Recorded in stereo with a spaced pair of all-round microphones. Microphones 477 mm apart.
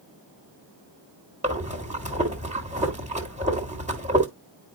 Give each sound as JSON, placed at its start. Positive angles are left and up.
{"t": 1.4, "sound": "breathing", "side_deg": -15, "distance_m": 1.6}